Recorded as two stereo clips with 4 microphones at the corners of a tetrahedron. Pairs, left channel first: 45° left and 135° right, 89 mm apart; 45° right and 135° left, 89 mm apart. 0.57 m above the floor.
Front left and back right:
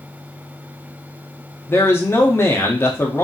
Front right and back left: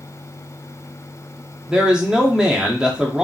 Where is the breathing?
I don't hear breathing.